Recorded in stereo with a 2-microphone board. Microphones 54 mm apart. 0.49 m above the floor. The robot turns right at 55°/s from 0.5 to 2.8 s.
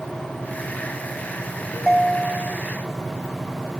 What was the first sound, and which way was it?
A ringtone, 175° left.